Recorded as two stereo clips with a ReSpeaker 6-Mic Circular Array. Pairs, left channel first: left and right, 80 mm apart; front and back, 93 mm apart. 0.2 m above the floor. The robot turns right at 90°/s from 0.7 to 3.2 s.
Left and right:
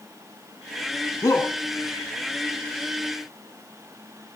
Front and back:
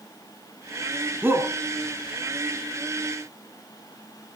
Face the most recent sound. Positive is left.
turn(degrees=-65)